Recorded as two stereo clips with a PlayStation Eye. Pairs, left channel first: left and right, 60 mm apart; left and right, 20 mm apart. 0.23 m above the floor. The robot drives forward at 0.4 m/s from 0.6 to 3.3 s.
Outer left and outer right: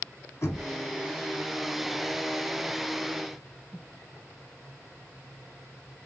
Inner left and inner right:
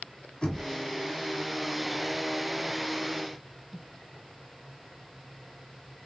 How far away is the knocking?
About 1.2 m.